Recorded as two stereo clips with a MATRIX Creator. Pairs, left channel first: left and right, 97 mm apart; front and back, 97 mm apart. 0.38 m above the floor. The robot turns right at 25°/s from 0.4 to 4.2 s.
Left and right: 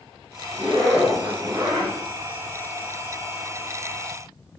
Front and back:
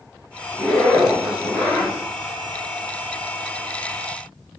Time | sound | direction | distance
0.5 | a zipper | 90° right | 1.7 m